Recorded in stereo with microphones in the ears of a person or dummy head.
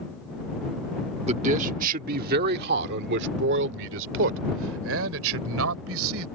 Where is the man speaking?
40° right (ahead or behind); by 6.2 s 85° right.